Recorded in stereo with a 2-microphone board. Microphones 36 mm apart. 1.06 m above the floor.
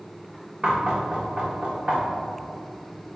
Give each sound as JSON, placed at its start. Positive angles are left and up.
{"t": 0.6, "sound": "knocking", "side_deg": -35, "distance_m": 0.9}